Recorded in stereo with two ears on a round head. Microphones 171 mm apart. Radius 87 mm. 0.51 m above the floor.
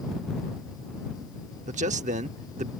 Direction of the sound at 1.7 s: 40° right (ahead or behind).